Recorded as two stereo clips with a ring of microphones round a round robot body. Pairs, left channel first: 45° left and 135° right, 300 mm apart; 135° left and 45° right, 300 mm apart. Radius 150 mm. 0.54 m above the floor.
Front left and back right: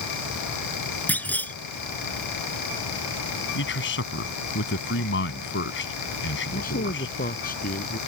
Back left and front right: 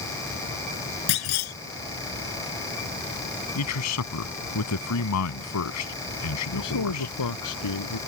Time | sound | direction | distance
1.1 | a clunk | 130° left | ?
3.5 | a man speaking | 100° left | ?
6.5 | a man speaking | 110° left | ?